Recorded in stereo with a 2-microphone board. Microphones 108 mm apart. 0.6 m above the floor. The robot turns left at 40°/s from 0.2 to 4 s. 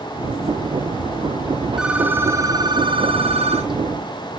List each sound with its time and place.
1.8 s a phone ringing: 5° right, 4 m; by 3.7 s 80° right, 4 m